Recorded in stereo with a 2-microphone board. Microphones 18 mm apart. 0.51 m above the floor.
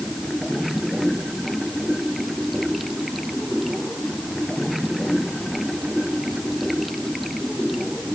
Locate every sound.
0.0 s running water: centre (ahead or behind)